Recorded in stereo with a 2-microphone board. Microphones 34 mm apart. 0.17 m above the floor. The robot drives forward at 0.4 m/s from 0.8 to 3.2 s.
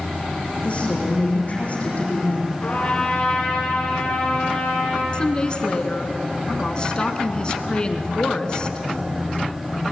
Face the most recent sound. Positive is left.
turn(degrees=25)  # may be behind; listen again after turning